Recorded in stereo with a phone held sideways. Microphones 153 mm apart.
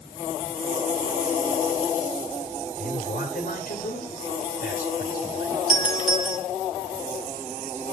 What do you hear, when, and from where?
2.8 s a man speaking: 65° left (ahead or behind), 2.5 m
5.7 s a doorbell: 50° right (ahead or behind), 3 m